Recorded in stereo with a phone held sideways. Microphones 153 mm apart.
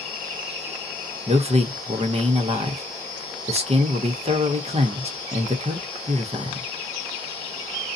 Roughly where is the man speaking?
Right.